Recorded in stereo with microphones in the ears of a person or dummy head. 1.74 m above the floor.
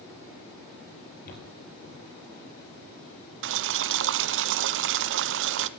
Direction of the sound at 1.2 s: 40° left (ahead or behind).